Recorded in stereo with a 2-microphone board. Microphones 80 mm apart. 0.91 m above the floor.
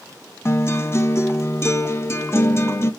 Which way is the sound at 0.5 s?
35° left (ahead or behind).